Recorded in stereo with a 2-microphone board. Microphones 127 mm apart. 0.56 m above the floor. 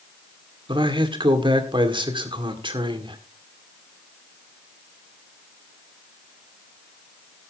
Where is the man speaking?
45° right (ahead or behind), 1.8 m.